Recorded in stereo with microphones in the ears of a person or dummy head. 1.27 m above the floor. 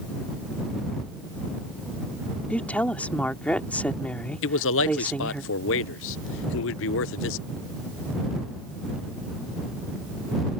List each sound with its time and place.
2.5 s a woman speaking: 5° left (ahead or behind)
4.4 s a man speaking: 65° left (ahead or behind)